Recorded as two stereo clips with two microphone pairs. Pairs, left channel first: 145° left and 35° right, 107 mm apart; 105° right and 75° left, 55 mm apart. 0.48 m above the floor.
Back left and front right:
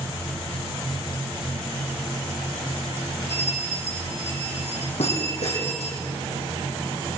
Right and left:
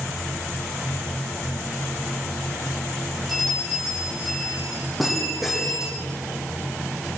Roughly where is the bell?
Behind.